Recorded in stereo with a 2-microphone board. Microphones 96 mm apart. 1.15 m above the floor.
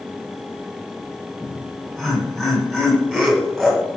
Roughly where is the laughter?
Centre.